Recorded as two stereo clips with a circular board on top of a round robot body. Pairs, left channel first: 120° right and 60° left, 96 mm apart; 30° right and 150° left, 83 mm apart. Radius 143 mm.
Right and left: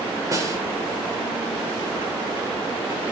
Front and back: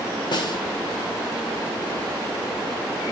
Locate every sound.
0.3 s a snare drum: 5° left, 2.5 m